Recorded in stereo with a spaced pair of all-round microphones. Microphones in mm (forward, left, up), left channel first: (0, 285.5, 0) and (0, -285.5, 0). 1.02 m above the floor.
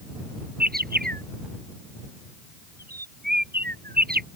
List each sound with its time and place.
0.6 s a bird: 15° right (ahead or behind)